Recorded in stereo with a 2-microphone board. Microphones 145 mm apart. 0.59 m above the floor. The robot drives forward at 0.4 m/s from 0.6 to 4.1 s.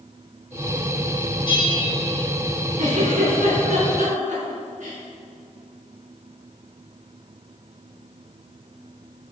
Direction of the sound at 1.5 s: 40° left (ahead or behind).